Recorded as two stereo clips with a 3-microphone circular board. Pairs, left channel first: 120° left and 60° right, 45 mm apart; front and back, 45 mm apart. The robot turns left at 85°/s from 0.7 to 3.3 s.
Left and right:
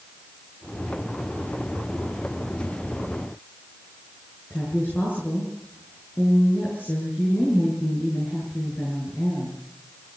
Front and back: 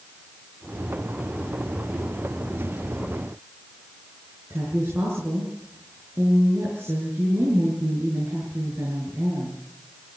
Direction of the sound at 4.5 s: 165° left.